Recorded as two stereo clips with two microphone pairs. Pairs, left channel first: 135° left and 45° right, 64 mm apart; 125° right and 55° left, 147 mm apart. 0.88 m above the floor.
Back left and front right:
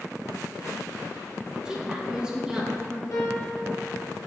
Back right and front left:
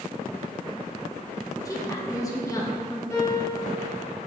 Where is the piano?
170° left, 2 m.